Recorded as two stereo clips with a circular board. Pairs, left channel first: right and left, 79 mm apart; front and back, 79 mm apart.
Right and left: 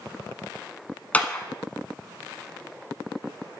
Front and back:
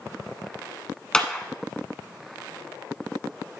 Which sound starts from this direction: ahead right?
A clap, at 1.1 s.